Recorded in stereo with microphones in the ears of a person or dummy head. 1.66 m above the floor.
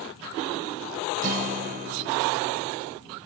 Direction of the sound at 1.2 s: 40° right (ahead or behind).